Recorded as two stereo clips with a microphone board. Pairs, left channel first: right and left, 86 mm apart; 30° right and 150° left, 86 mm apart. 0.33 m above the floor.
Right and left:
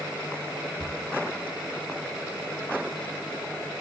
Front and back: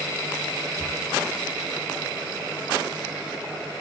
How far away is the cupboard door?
About 1.8 m.